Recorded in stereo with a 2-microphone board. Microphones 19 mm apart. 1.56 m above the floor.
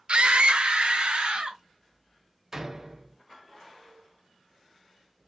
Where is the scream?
60° right (ahead or behind), 0.7 m; by 1.6 s 75° right (ahead or behind), 1.8 m.